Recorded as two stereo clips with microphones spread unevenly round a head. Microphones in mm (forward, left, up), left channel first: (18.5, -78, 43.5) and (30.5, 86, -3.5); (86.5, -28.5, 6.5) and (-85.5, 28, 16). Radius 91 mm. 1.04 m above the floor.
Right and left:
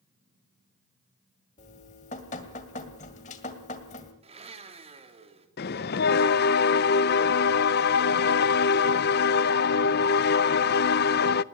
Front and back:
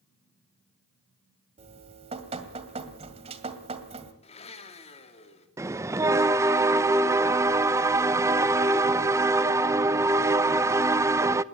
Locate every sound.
1.6 s dripping: 140° right, 2 m
4.2 s a blender: 35° left, 3 m
5.6 s a bell: 125° right, 0.6 m